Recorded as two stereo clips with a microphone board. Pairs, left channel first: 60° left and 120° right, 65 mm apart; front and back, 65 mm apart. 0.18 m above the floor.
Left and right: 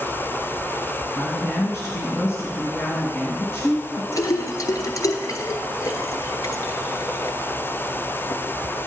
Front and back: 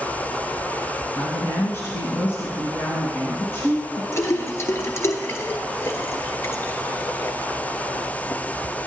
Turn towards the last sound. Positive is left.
turn(degrees=40)